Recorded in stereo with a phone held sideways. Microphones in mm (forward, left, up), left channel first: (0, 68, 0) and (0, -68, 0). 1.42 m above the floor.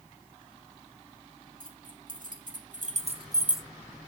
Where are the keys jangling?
80° right, 2.5 m; by 3.6 s 5° left (ahead or behind), 0.8 m.